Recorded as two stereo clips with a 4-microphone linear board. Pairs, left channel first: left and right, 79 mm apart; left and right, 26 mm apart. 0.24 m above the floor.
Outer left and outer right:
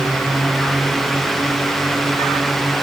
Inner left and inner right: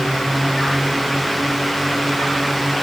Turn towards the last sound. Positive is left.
No sound to turn to.